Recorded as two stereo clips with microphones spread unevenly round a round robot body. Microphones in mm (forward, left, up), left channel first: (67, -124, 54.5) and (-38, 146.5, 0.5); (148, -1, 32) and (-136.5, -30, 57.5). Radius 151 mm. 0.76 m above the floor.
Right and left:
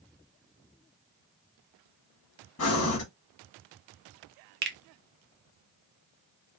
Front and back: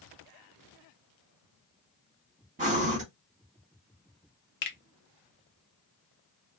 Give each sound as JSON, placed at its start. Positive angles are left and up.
{"t": 2.6, "sound": "breathing", "azimuth_deg": -110, "distance_m": 1.3}
{"t": 4.6, "sound": "a finger snap", "azimuth_deg": 60, "distance_m": 0.6}